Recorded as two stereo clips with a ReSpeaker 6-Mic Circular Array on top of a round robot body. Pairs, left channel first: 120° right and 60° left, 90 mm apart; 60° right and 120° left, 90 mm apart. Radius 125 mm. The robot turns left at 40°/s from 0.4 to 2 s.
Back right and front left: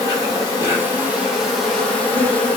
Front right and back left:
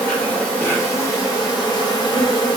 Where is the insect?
15° left, 1.6 m; by 2.6 s 50° right, 1.6 m.